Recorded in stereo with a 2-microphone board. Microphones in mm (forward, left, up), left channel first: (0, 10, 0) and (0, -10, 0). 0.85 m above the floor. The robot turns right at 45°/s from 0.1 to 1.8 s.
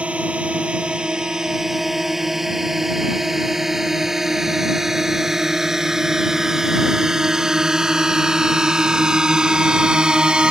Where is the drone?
85° right; by 10.5 s 45° right (ahead or behind).